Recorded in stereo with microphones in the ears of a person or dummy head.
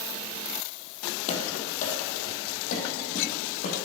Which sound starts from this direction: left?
Running footsteps, at 1.3 s.